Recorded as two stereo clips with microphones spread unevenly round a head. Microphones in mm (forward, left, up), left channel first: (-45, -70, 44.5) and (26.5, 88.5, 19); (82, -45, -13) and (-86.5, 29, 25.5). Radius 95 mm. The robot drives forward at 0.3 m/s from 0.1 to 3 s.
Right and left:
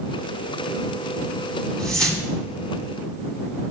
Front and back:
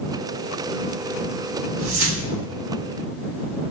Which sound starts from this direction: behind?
A whoosh, at 1.8 s.